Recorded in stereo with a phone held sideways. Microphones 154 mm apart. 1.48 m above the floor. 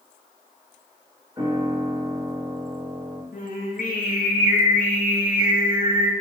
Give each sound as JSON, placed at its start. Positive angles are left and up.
{"t": 1.4, "sound": "a piano", "side_deg": -25, "distance_m": 3.5}
{"t": 3.3, "sound": "singing", "side_deg": 60, "distance_m": 1.5}